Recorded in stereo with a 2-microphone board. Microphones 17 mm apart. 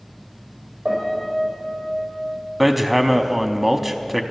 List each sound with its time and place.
0.8 s a piano: 45° right (ahead or behind), 5.5 m
2.6 s hammering: 10° right (ahead or behind), 0.6 m